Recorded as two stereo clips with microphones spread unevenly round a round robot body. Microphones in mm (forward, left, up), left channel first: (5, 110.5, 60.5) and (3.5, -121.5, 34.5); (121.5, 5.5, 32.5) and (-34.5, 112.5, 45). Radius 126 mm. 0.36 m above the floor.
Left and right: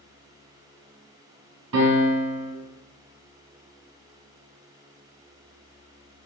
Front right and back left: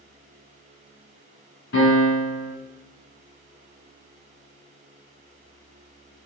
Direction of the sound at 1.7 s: 80° right.